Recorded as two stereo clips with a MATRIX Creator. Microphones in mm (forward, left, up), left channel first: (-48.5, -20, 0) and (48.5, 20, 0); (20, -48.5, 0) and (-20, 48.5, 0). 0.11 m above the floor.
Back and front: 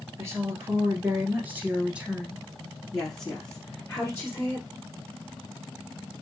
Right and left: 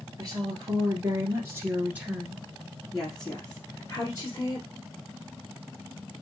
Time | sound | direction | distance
0.2 | a woman speaking | 75° left | 1.8 m